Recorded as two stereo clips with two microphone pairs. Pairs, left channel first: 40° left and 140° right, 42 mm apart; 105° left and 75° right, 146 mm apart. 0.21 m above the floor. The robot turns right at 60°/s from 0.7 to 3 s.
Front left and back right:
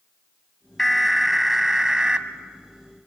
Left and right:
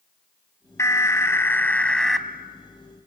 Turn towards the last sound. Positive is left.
turn(degrees=-120)